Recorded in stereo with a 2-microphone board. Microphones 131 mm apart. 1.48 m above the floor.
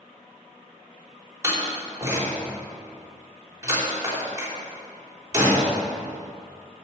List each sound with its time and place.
1.4 s a door slam: 25° right (ahead or behind), 3.5 m